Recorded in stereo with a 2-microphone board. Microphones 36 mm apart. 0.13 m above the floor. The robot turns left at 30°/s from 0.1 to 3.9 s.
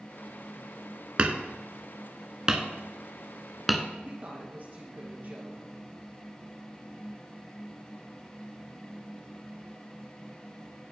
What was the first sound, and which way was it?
Hammering, 35° right (ahead or behind).